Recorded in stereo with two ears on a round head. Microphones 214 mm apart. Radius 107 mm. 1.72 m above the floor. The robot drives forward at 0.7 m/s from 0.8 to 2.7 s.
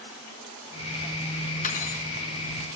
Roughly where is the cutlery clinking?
Left.